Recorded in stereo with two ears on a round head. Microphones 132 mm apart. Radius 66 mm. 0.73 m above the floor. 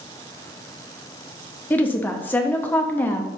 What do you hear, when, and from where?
1.7 s a woman speaking: 15° left (ahead or behind), 0.7 m